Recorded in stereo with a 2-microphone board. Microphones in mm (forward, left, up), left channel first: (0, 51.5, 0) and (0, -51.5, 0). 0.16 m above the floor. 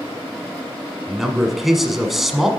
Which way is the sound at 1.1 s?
Centre (ahead or behind).